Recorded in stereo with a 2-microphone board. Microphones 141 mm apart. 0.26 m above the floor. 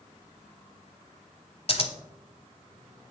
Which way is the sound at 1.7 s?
45° left (ahead or behind).